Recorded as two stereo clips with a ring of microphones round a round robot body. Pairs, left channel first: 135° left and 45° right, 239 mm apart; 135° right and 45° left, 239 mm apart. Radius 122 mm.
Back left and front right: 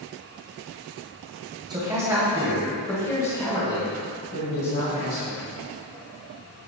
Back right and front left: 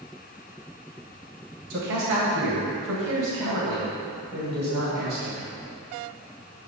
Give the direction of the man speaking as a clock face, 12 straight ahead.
11 o'clock.